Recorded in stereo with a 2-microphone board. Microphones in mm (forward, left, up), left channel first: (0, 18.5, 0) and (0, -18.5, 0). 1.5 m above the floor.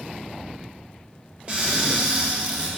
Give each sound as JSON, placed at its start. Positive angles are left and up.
{"t": 1.5, "sound": "a cupboard door", "side_deg": -30, "distance_m": 1.3}